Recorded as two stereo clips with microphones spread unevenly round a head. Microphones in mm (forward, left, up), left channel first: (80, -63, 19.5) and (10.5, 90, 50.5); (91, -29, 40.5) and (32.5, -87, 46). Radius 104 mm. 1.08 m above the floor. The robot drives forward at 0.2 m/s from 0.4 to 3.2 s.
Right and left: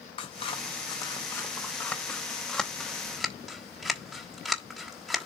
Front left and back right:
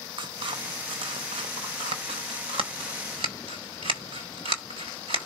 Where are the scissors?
135° right, 0.6 m; by 5.3 s 155° right, 1.0 m.